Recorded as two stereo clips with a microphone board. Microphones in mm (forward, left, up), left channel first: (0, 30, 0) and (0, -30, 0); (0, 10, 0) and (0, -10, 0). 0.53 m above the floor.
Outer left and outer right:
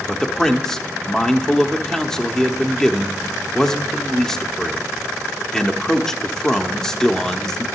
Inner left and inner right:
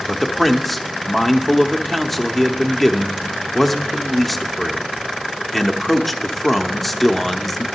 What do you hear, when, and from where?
0.1 s a man speaking: 10° left (ahead or behind), 0.9 m